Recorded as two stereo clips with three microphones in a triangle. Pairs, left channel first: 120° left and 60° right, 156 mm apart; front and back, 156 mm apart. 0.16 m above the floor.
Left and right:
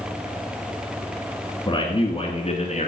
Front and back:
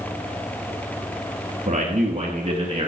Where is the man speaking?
170° left, 1.9 m; by 2.9 s 135° left, 2 m.